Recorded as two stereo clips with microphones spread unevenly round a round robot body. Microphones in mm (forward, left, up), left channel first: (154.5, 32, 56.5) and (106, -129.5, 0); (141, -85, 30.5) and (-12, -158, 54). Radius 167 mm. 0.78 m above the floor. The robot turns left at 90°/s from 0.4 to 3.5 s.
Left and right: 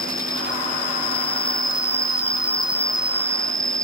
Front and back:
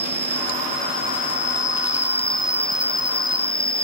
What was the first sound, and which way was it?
An insect, 165° left.